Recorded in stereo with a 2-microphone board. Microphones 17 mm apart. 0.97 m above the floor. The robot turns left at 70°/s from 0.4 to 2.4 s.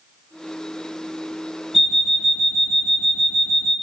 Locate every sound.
1.7 s an alarm clock: 15° right, 1.5 m; by 3.7 s 60° right, 1.5 m